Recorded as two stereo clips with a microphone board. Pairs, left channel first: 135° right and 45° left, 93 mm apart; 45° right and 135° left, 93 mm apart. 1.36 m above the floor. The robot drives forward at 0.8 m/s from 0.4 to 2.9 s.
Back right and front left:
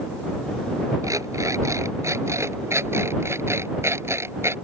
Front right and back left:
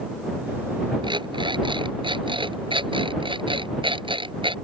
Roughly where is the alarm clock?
Left.